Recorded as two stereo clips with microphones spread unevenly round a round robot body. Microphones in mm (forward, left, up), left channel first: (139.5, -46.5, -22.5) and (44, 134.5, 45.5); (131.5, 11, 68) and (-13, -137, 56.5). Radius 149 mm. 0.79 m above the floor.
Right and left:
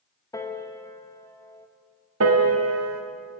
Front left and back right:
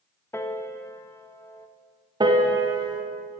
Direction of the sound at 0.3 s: 30° right.